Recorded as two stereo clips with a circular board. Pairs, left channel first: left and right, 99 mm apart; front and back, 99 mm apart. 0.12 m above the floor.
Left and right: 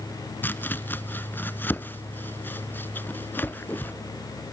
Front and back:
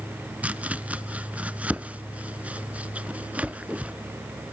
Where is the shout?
I don't hear a shout.